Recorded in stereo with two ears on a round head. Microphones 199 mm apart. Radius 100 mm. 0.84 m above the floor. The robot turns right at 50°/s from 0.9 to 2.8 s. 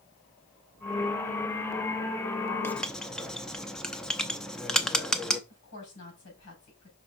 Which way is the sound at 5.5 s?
85° left.